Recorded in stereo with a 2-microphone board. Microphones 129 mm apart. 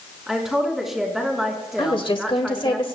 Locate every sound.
0.3 s a woman speaking: 5° right (ahead or behind), 3.5 m
1.8 s a woman speaking: 40° left (ahead or behind), 1.5 m